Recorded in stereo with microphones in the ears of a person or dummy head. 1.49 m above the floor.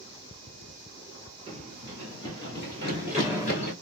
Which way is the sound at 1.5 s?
20° right (ahead or behind).